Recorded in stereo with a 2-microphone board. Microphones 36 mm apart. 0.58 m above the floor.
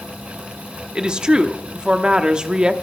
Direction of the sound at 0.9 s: 25° right (ahead or behind).